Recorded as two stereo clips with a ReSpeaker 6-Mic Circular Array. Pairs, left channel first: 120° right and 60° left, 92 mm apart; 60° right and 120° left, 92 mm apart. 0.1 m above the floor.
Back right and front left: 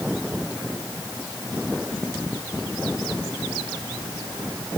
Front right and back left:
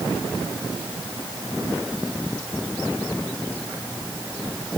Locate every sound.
Only background noise.